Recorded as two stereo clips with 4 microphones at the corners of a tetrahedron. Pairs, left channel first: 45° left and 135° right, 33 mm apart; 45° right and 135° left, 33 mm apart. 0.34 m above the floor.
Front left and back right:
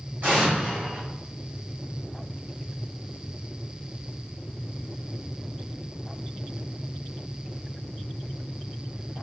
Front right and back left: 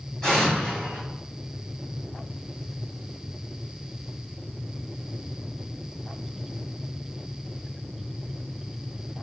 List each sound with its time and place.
0.2 s an explosion: 115° right, 2.0 m